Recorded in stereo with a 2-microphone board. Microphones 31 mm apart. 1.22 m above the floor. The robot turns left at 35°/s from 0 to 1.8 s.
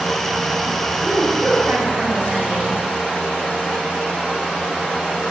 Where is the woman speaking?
85° right, 5.5 m; by 2.8 s 65° right (ahead or behind), 5.5 m.